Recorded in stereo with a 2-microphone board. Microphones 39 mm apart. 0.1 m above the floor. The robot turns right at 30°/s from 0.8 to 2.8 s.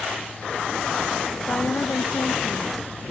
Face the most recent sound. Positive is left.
turn(degrees=110)